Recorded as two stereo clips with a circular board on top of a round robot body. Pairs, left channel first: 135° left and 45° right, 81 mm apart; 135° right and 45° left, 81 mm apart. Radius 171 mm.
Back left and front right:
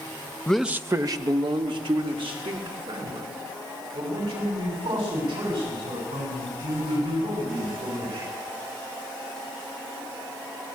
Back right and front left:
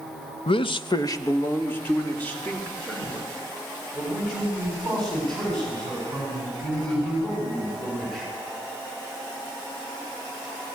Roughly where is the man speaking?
Behind right.